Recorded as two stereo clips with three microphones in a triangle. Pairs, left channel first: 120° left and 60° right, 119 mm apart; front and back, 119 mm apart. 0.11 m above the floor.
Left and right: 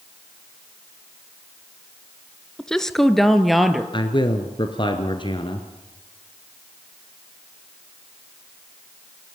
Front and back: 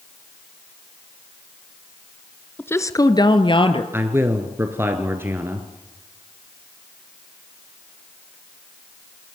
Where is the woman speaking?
45° left, 1.1 m; by 3.8 s 30° left, 2.0 m.